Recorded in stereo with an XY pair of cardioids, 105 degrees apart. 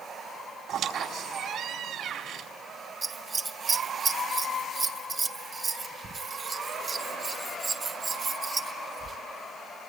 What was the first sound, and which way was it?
A squeak, 70° right.